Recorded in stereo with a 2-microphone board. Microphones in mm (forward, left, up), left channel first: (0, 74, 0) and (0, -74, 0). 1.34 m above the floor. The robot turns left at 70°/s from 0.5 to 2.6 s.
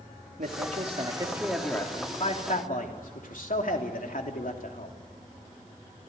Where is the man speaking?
105° right, 3 m; by 5.0 s 105° left, 3 m.